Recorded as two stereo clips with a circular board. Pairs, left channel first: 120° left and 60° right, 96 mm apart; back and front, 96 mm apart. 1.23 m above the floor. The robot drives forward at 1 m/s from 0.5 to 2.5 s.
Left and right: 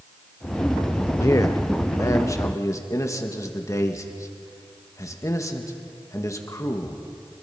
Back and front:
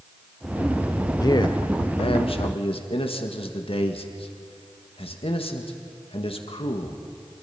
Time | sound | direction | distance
1.2 | a man speaking | 160° left | 0.7 m